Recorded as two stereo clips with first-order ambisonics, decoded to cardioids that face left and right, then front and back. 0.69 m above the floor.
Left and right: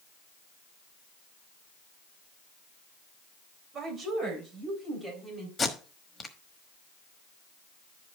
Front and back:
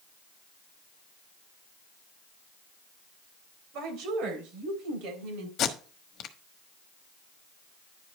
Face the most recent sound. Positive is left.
turn(degrees=25)